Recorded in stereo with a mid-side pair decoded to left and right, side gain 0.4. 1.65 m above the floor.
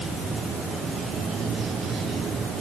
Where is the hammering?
No hammering in this recording.